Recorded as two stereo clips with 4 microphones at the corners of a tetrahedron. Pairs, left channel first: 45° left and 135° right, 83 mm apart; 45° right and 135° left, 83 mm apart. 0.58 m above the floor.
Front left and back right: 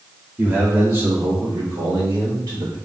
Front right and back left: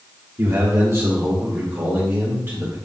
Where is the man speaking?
165° left, 1.2 m; by 2.8 s 170° right, 2.5 m.